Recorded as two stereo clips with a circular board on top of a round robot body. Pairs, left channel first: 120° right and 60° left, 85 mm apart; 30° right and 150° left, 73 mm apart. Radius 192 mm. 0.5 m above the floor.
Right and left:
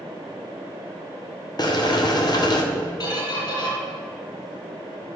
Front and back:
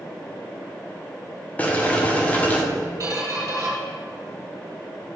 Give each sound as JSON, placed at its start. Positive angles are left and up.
{"t": 1.6, "sound": "boiling", "azimuth_deg": -95, "distance_m": 1.7}
{"t": 3.0, "sound": "a squeak", "azimuth_deg": -160, "distance_m": 3.0}